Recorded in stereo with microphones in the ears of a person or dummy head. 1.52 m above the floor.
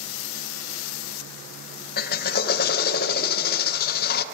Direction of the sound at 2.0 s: 55° left (ahead or behind).